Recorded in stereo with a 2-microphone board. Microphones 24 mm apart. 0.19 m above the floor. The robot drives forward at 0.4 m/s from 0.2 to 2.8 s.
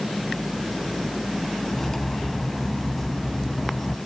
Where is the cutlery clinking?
10° left (ahead or behind), 0.6 m.